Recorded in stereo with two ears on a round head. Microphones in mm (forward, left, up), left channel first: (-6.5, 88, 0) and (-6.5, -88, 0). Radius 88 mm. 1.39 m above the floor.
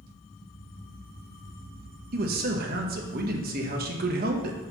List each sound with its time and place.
2.1 s a man speaking: 50° right (ahead or behind), 1.2 m